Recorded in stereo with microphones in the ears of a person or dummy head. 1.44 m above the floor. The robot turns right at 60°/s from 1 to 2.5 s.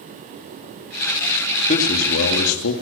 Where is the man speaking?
40° left, 3 m; by 2.7 s 90° left, 3 m.